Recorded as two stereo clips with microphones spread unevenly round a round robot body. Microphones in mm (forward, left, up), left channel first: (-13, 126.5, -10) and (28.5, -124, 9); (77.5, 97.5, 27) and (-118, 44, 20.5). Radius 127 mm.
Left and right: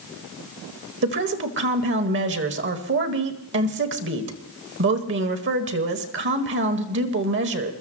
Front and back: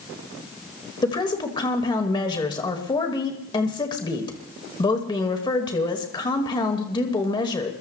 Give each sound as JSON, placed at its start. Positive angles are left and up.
{"t": 1.0, "sound": "a woman speaking", "azimuth_deg": -50, "distance_m": 1.6}